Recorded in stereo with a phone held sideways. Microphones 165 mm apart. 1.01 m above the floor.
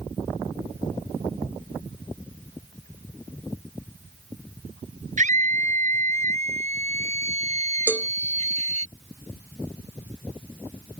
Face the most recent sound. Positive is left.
turn(degrees=-10)  # may be behind; listen again after turning